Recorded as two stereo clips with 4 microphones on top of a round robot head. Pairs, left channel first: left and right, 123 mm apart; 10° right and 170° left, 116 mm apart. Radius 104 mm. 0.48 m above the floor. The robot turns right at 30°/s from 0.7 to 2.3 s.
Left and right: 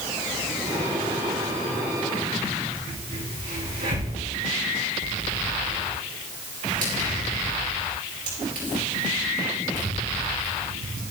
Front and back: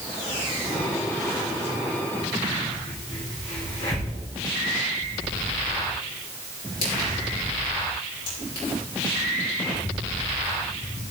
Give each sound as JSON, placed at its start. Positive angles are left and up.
{"t": 2.9, "sound": "a crack", "azimuth_deg": -60, "distance_m": 4.5}